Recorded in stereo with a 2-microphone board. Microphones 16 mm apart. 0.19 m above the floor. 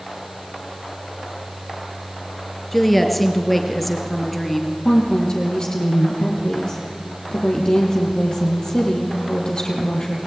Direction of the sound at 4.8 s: 45° left (ahead or behind).